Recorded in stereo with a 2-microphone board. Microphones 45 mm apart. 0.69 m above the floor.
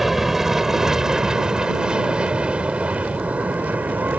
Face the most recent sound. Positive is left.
turn(degrees=-40)  # may be behind; listen again after turning